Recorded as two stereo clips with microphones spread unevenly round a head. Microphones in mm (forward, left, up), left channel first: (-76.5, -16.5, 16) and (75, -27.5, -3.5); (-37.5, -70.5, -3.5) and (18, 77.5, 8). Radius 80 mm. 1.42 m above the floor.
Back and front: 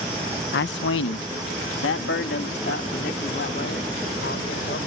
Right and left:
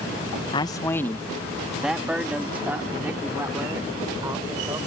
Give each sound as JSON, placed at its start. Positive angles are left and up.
{"t": 0.5, "sound": "a man speaking", "azimuth_deg": -170}